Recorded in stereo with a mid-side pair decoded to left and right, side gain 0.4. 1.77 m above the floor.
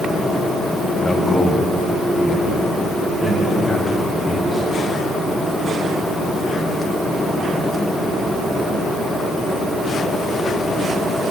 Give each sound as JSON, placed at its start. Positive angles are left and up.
{"t": 1.0, "sound": "a man speaking", "azimuth_deg": 30, "distance_m": 2.0}